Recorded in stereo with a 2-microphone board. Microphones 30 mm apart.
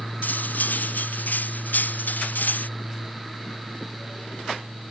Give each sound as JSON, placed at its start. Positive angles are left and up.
{"t": 0.2, "sound": "cutlery clinking", "side_deg": 70}